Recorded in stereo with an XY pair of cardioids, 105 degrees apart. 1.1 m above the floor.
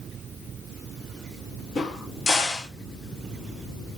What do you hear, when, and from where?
1.8 s a crack: 50° left, 1.9 m